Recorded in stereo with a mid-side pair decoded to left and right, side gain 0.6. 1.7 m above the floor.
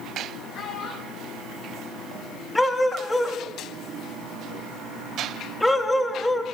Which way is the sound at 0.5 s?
65° left.